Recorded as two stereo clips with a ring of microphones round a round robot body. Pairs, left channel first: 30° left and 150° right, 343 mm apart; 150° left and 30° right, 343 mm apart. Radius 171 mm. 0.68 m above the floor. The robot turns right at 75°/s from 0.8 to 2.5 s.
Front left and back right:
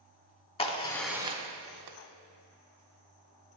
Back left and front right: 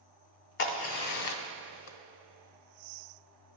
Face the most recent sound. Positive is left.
turn(degrees=-130)